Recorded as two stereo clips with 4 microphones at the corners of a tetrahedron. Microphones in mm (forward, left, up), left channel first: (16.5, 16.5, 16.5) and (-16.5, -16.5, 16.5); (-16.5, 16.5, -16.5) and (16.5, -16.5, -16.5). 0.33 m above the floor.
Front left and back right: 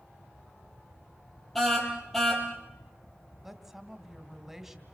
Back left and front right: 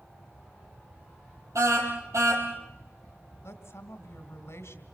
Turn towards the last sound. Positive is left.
turn(degrees=140)